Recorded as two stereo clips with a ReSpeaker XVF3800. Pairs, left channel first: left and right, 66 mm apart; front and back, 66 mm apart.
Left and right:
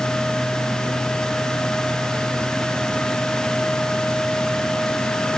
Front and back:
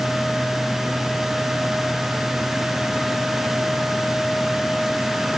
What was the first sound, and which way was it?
Only background noise.